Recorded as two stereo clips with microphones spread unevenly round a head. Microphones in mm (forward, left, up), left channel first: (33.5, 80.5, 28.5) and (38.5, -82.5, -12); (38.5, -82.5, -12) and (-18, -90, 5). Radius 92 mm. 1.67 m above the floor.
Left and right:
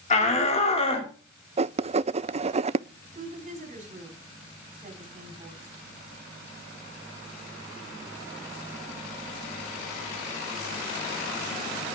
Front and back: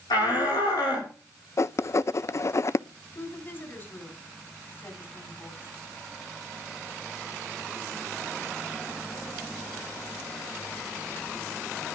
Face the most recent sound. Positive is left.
turn(degrees=-45)